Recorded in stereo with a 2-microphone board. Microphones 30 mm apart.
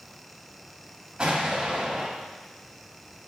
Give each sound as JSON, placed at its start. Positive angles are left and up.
{"t": 1.2, "sound": "an explosion", "side_deg": -30, "distance_m": 1.7}